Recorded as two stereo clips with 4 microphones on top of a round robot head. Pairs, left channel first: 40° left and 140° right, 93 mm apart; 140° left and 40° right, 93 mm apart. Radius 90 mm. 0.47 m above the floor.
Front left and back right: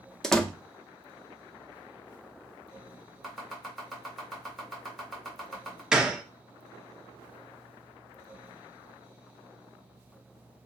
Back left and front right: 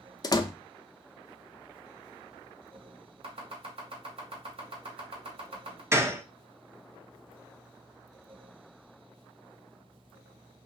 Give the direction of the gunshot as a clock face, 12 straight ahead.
2 o'clock.